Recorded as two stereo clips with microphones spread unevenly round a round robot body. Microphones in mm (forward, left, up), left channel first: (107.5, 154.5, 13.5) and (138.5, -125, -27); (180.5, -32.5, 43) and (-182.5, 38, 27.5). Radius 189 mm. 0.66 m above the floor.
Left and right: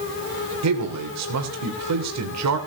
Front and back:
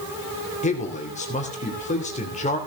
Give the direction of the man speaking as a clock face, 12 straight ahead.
3 o'clock.